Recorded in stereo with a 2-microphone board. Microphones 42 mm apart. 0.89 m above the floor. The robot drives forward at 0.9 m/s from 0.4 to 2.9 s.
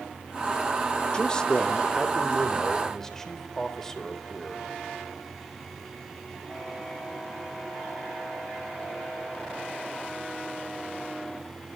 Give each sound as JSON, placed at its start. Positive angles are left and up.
{"t": 1.1, "sound": "a man speaking", "side_deg": 25, "distance_m": 1.4}